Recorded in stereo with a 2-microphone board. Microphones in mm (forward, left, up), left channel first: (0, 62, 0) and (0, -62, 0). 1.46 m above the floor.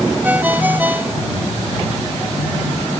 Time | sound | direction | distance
0.2 | a ringtone | 15° right (ahead or behind) | ?